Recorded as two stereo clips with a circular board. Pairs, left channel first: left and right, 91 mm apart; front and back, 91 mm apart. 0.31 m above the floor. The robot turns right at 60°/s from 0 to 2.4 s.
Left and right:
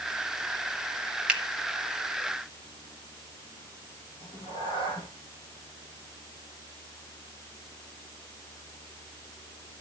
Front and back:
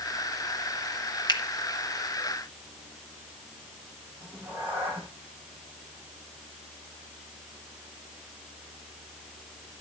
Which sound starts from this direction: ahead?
A finger snap, at 1.3 s.